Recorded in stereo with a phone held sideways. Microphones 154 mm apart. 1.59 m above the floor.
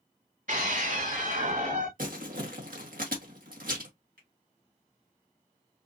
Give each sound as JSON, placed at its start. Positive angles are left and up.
{"t": 0.5, "sound": "a scream", "side_deg": -60, "distance_m": 2.5}
{"t": 2.0, "sound": "crumpling", "side_deg": -70, "distance_m": 1.6}
{"t": 4.2, "sound": "a finger snap", "side_deg": -80, "distance_m": 2.5}